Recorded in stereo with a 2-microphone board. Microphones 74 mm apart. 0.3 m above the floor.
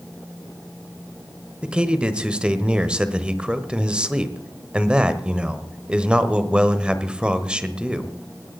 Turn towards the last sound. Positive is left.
turn(degrees=-15)  # may be behind; listen again after turning